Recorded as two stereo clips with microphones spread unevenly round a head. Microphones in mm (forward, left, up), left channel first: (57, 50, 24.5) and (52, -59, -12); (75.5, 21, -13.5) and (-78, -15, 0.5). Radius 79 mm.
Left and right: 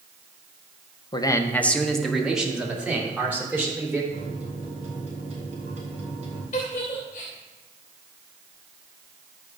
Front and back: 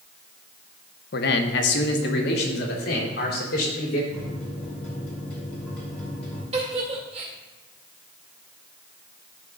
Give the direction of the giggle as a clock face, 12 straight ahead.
7 o'clock.